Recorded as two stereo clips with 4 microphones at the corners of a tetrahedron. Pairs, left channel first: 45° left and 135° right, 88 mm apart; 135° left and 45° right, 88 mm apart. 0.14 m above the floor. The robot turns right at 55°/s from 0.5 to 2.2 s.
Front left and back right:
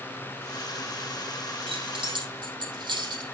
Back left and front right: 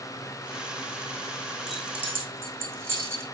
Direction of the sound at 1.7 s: 135° right.